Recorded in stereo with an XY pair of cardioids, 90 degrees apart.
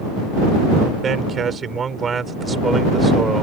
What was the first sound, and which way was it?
A man speaking, 55° right.